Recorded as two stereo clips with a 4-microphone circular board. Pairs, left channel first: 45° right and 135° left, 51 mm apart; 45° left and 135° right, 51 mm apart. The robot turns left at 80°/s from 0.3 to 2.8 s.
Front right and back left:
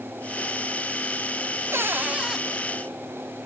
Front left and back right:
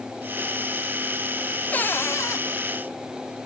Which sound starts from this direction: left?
A cupboard door, at 1.7 s.